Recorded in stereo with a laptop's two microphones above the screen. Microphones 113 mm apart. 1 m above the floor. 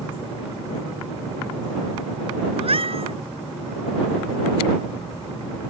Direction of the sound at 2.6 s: 55° right (ahead or behind).